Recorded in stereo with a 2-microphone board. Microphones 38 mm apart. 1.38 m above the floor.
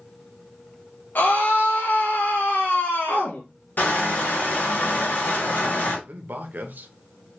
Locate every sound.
1.1 s a scream: 55° left (ahead or behind), 0.8 m
3.8 s crushing: 50° left (ahead or behind), 2.0 m
6.1 s a man speaking: 55° right (ahead or behind), 0.7 m